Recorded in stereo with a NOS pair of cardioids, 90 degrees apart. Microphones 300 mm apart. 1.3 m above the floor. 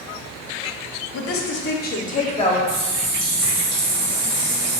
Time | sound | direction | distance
1.1 | a woman speaking | 60° left | 0.7 m
2.7 | a running tap | 60° right | 1.3 m